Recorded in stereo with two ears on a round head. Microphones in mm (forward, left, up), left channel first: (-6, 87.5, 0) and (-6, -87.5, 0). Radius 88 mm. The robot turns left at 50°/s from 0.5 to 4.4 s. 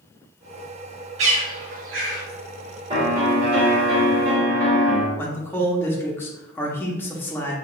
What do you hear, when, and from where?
1.2 s a bird: 35° right (ahead or behind), 1.3 m; by 2.2 s 45° right (ahead or behind), 1.3 m
2.9 s a piano: 30° right, 1.8 m; by 5.1 s 105° right, 1.8 m
5.2 s a man speaking: 10° left (ahead or behind), 0.7 m